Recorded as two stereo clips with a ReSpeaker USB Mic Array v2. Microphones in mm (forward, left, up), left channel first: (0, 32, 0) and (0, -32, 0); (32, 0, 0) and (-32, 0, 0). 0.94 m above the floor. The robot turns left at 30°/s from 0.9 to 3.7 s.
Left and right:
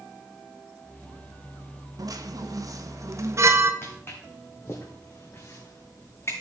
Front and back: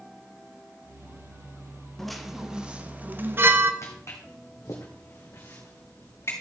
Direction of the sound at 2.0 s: 85° right.